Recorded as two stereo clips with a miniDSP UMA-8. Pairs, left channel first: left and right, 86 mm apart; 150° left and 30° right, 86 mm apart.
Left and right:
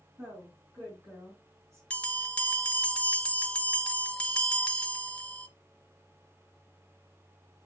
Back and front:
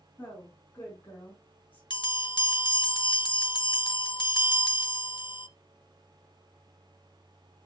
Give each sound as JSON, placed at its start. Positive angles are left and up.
{"t": 0.2, "sound": "a woman speaking", "azimuth_deg": -150, "distance_m": 4.0}
{"t": 1.9, "sound": "a bell", "azimuth_deg": 165, "distance_m": 1.1}